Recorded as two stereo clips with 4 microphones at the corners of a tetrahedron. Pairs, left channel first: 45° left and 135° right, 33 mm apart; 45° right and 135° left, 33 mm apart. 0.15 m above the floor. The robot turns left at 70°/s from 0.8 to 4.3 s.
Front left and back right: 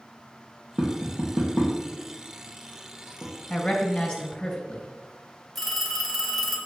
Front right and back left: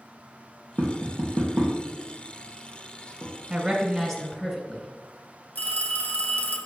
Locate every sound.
0.8 s tapping: 165° left, 3 m; by 3.3 s 10° right, 3 m
3.5 s a woman speaking: 65° left, 1.5 m; by 4.9 s 10° left, 1.5 m
5.5 s a phone ringing: 40° right, 1.6 m